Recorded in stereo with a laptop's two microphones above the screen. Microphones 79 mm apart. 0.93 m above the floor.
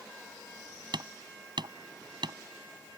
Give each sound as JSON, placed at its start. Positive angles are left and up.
{"t": 0.9, "sound": "hammering", "side_deg": -70}